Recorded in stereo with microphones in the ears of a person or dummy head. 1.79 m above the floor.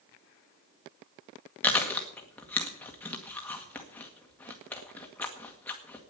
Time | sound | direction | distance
1.6 | chewing | 5° left (ahead or behind) | 1.8 m